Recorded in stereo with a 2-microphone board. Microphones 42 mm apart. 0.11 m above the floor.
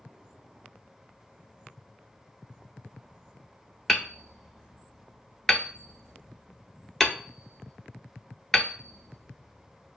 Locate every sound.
3.9 s hammering: 10° left (ahead or behind), 0.8 m